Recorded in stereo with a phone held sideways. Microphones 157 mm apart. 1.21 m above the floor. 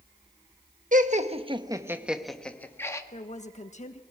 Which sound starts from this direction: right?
Laughter, at 0.9 s.